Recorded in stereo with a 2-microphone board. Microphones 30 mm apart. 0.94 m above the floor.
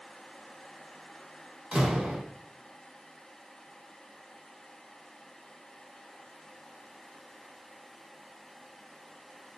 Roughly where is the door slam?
Right.